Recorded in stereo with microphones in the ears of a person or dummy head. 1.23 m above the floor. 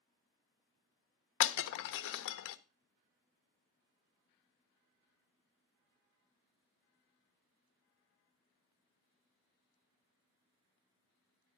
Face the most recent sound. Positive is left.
turn(degrees=70)  # may be behind; listen again after turning